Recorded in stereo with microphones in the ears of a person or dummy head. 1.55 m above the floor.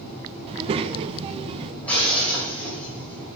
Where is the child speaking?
30° right (ahead or behind), 0.7 m.